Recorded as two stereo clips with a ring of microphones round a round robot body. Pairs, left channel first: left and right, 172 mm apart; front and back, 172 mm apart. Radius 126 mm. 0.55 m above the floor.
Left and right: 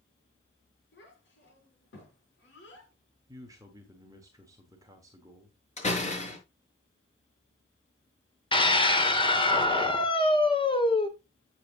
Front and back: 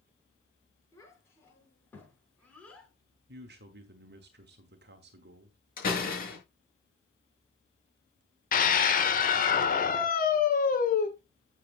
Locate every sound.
0.9 s a child speaking: 75° left, 7 m; by 2.9 s 85° left, 6 m
3.3 s a man speaking: 165° right, 1.3 m
5.8 s a door slam: 40° left, 6 m
8.5 s a scream: 30° left, 2.5 m